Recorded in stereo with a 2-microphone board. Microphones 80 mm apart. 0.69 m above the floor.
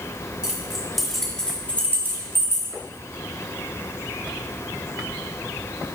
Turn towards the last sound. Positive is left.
turn(degrees=40)  # may be behind; listen again after turning